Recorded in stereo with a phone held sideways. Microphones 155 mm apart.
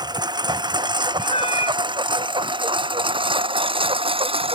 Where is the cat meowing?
40° left (ahead or behind).